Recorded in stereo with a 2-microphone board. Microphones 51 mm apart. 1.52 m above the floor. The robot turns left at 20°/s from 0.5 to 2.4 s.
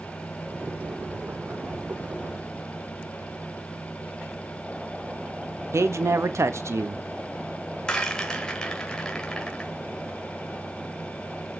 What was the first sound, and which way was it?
A man speaking, 65° right (ahead or behind).